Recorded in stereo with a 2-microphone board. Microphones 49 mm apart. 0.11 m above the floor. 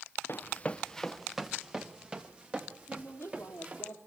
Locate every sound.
0.3 s running footsteps: 50° left (ahead or behind), 0.8 m; by 3.9 s 30° right (ahead or behind), 3.5 m
2.9 s a woman speaking: 55° left (ahead or behind), 3 m